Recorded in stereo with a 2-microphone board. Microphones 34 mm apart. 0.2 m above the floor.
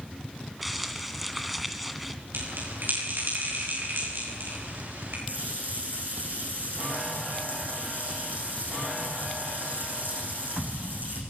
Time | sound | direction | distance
0.6 | crumpling | 5° right (ahead or behind) | 1.8 m
2.3 | a bell | 75° right (ahead or behind) | 9.5 m
5.3 | a running tap | 65° right (ahead or behind) | 8 m